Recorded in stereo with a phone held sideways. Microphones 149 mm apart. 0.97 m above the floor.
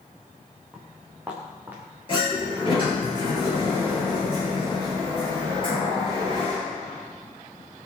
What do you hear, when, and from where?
0.7 s footsteps: 5° right (ahead or behind), 4.5 m; by 1.8 s 15° right (ahead or behind), 5.5 m
2.1 s a sliding door: 35° left (ahead or behind), 9.5 m